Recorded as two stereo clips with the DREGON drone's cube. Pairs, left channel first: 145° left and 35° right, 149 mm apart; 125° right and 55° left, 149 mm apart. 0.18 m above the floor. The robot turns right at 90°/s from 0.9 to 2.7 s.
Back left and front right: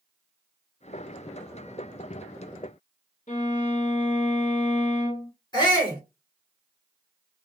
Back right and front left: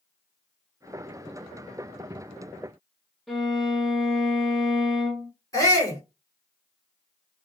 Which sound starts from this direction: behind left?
A violin, at 3.3 s.